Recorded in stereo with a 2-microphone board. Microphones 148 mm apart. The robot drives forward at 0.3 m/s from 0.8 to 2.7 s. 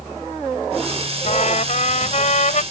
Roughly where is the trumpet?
Left.